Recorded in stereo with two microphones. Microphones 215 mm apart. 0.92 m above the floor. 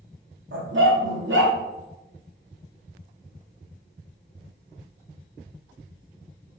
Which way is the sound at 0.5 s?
60° right (ahead or behind).